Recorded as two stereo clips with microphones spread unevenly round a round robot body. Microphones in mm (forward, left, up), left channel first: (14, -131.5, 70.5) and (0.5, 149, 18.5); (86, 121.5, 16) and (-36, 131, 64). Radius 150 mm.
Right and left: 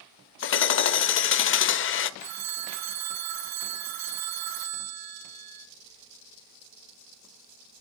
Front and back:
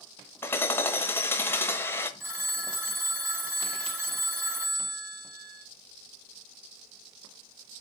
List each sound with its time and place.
0.4 s hammering: 45° right, 0.7 m
2.2 s a phone ringing: 100° left, 1.8 m